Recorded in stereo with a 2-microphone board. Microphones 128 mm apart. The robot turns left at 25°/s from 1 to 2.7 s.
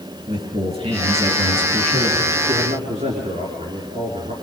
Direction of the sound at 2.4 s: 65° right (ahead or behind).